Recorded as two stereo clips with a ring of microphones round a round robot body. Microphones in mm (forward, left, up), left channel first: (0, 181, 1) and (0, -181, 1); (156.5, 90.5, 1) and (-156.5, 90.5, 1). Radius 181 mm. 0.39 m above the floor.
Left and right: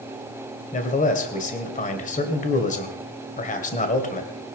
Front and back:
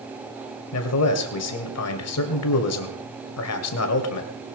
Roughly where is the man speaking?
Ahead left.